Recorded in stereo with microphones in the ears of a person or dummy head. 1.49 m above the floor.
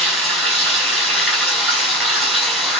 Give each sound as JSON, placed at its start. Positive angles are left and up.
{"t": 0.0, "sound": "running water", "side_deg": 5, "distance_m": 4.0}